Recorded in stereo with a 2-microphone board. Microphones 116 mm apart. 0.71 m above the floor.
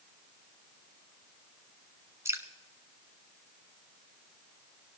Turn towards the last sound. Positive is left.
turn(degrees=-25)  # may be behind; listen again after turning